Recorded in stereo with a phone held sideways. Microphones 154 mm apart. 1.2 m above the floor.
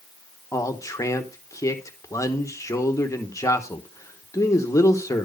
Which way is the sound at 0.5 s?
20° left (ahead or behind).